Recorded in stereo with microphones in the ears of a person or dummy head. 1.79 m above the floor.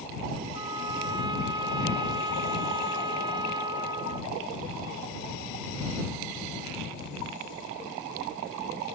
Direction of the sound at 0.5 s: 25° right (ahead or behind).